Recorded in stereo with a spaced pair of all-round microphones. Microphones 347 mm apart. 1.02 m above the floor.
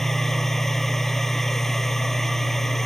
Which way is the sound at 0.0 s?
Centre (ahead or behind).